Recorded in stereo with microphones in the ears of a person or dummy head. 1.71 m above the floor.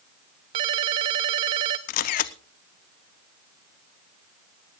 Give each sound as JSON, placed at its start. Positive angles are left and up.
{"t": 0.5, "sound": "a ringtone", "side_deg": -20, "distance_m": 0.6}
{"t": 1.9, "sound": "a camera shutter", "side_deg": 50, "distance_m": 0.7}